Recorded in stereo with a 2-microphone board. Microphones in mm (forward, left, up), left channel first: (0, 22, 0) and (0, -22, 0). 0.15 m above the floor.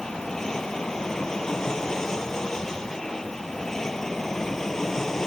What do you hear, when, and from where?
0.0 s an aircraft: 15° left (ahead or behind); by 5.3 s 10° left (ahead or behind)